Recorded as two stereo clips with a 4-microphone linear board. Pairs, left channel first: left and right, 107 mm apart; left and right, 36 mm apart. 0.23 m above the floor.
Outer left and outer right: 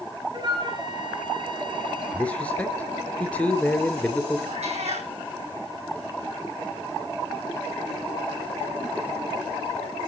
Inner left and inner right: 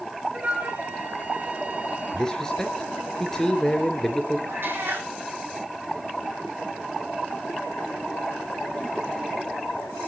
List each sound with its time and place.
0.3 s a flute: 45° right (ahead or behind), 2.0 m
2.1 s a man speaking: 10° left (ahead or behind), 3 m
4.5 s a cat meowing: 85° right, 3.5 m